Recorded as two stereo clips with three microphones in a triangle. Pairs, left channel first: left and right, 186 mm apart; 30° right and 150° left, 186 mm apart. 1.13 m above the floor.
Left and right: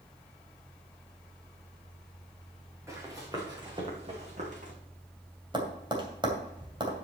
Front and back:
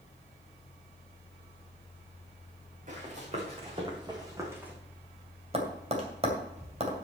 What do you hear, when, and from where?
2.9 s running footsteps: 165° right, 4 m; by 4.7 s 130° right, 2.5 m
5.5 s tapping: 155° right, 2.5 m